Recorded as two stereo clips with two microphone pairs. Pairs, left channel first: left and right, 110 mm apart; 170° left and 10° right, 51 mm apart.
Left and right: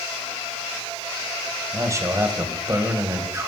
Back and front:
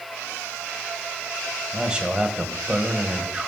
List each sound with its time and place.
1.7 s a man speaking: 65° right, 1.6 m